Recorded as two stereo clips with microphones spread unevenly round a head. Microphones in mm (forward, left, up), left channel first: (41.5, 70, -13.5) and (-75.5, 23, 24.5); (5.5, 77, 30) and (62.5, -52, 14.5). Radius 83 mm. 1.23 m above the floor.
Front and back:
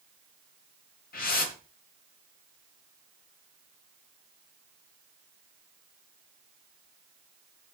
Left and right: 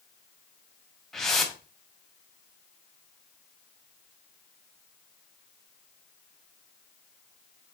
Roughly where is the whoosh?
Ahead left.